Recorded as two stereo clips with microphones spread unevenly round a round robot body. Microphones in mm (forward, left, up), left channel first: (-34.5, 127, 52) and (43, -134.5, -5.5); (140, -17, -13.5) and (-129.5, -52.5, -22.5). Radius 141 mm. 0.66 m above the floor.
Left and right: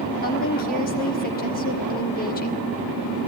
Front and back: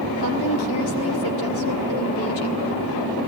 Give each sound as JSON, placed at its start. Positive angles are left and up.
{"t": 0.2, "sound": "a woman speaking", "azimuth_deg": 45, "distance_m": 1.5}